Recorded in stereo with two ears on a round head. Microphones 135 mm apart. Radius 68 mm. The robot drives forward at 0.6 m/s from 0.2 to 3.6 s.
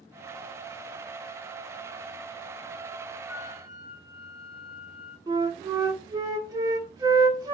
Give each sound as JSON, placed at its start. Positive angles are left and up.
{"t": 3.3, "sound": "a flute", "side_deg": 0, "distance_m": 2.0}
{"t": 5.3, "sound": "a flute", "side_deg": -25, "distance_m": 0.9}